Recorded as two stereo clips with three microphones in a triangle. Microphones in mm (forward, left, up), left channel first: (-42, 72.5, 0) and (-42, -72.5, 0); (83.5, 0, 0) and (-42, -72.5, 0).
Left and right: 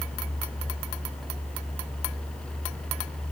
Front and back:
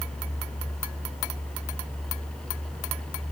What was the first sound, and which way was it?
Only background noise.